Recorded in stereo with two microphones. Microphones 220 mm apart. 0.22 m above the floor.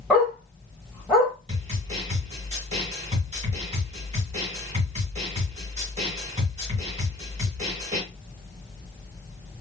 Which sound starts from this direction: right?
A snare drum, at 1.5 s.